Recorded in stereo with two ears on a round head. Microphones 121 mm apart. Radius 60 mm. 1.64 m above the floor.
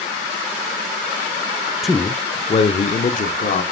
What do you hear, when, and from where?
1.8 s a man speaking: centre (ahead or behind), 0.5 m; by 3.6 s 70° left (ahead or behind), 1.0 m